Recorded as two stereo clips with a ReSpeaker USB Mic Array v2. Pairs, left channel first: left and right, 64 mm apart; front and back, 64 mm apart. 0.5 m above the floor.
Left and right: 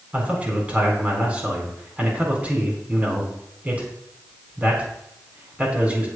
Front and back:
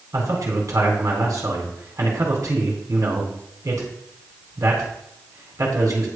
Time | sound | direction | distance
0.1 | a man speaking | 155° right | 4 m